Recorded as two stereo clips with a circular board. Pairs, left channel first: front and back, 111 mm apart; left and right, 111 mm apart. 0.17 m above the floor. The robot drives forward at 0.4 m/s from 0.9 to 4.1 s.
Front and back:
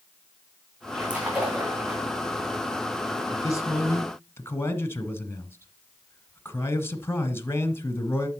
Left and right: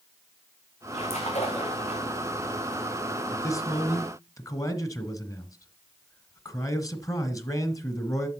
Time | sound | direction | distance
0.9 | a splash | 100° left | 3.5 m
3.3 | a man speaking | 40° left | 1.5 m